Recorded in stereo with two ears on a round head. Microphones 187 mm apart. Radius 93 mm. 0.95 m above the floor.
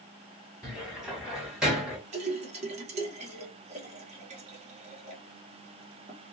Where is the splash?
35° right (ahead or behind), 0.9 m.